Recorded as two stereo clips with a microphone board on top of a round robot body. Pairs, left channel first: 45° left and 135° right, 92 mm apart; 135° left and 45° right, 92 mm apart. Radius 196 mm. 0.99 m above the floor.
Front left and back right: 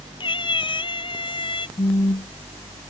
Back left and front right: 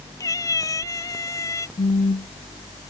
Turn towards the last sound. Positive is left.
turn(degrees=95)